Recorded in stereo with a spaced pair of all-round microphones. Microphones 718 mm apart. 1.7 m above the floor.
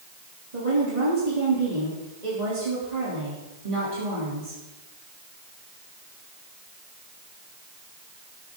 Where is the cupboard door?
I don't hear a cupboard door.